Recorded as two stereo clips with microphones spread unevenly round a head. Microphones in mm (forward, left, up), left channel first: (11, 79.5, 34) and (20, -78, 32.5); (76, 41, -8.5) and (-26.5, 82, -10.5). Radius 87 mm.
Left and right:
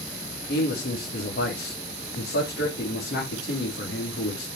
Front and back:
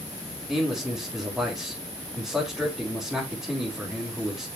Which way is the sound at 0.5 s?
70° left.